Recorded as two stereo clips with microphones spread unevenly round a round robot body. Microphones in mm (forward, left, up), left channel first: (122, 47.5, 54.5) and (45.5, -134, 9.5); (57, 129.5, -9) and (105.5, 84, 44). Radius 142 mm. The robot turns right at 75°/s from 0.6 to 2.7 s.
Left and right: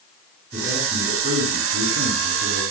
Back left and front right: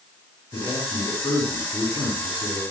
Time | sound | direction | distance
0.5 | a man speaking | 145° left | 7 m